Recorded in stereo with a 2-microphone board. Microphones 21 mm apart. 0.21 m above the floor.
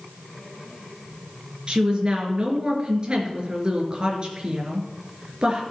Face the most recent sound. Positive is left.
turn(degrees=-40)  # may be behind; listen again after turning